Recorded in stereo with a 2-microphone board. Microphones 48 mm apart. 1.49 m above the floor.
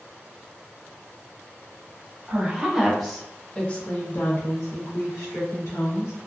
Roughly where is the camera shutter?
No camera shutter in this recording.